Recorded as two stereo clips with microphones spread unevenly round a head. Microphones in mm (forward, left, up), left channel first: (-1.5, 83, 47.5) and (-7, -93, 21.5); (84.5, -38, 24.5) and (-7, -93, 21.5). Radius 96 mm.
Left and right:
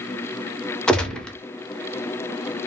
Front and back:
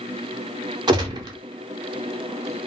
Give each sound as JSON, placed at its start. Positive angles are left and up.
{"t": 0.9, "sound": "a gunshot", "azimuth_deg": 180, "distance_m": 0.6}